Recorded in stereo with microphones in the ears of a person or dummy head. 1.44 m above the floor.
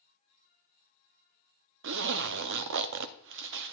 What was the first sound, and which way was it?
A zipper, 65° right (ahead or behind).